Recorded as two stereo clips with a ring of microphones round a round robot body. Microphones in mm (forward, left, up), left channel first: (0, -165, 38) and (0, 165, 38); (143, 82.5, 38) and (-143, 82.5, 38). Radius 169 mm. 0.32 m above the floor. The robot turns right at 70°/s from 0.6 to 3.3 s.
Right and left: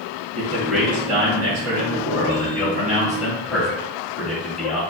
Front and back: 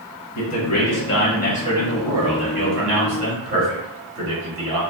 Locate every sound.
0.3 s a man speaking: 5° right, 1.5 m; by 4.8 s 175° right, 1.5 m